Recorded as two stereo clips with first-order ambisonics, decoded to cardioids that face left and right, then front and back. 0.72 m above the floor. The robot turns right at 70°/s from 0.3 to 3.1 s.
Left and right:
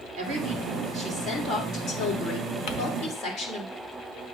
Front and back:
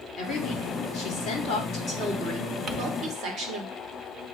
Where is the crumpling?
120° left, 1.1 m; by 2.8 s 125° left, 1.1 m.